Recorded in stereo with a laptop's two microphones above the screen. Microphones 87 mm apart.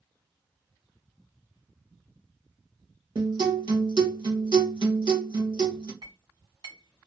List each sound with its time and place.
3.1 s a guitar: 65° right (ahead or behind), 1.5 m
6.0 s a clink: 65° right (ahead or behind), 1.6 m